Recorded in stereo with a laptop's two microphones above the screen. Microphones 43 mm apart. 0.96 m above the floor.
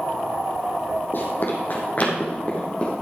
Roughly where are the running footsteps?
Left.